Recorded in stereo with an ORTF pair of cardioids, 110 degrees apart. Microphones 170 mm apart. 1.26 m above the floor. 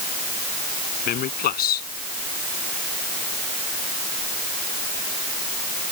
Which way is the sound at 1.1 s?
60° left.